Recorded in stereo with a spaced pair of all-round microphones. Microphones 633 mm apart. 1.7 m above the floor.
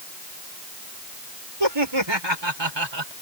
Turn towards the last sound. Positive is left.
turn(degrees=-40)  # may be behind; listen again after turning